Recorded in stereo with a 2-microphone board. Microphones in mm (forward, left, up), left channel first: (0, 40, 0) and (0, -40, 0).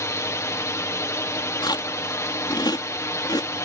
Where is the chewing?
60° left (ahead or behind).